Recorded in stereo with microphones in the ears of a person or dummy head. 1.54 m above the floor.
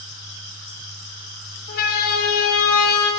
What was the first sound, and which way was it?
A siren, 50° left (ahead or behind).